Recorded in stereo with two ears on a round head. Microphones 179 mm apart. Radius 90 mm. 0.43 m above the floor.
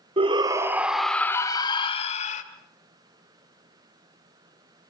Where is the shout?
30° right (ahead or behind), 1.3 m; by 2.4 s 40° left (ahead or behind), 1.7 m.